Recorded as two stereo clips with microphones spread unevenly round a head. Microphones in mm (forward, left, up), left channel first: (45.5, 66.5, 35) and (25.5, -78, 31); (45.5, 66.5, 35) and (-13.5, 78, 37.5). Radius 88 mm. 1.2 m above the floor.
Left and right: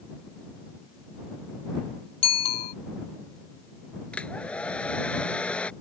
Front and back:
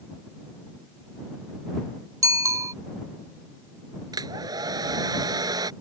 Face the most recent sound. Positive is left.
turn(degrees=165)